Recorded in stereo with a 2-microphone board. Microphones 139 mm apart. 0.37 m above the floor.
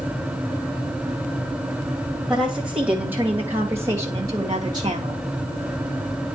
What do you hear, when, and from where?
2.3 s a woman speaking: 5° right (ahead or behind), 2 m; by 5.2 s 35° right (ahead or behind), 1.7 m